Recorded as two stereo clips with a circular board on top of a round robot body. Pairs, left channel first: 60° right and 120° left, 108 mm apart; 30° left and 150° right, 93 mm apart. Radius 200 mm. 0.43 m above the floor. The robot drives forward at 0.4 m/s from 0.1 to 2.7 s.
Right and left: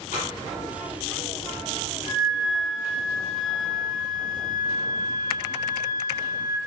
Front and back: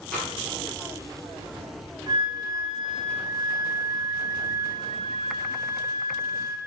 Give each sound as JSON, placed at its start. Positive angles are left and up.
{"t": 0.1, "sound": "tapping", "azimuth_deg": -50, "distance_m": 3.5}
{"t": 2.1, "sound": "a flute", "azimuth_deg": -100, "distance_m": 3.0}